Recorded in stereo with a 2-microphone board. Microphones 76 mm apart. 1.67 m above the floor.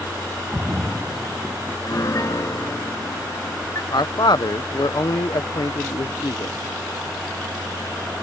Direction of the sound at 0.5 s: 10° right (ahead or behind).